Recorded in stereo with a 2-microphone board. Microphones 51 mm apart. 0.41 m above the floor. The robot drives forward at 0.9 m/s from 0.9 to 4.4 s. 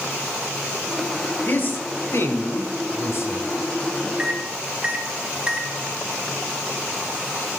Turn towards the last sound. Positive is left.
turn(degrees=-20)  # may be behind; listen again after turning